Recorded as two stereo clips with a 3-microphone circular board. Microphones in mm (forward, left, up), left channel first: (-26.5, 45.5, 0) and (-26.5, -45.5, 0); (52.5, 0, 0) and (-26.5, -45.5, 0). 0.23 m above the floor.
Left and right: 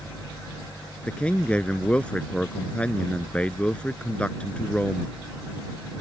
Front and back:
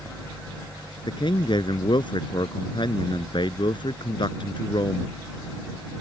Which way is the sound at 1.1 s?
15° left.